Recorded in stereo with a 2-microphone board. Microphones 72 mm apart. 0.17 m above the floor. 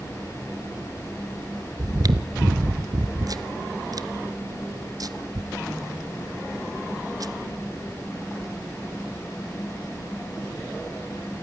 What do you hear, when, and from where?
1.8 s chewing: 55° right (ahead or behind), 1.0 m